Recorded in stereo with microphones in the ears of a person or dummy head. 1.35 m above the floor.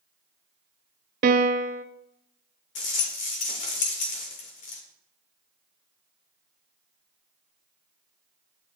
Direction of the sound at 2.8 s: 45° left (ahead or behind).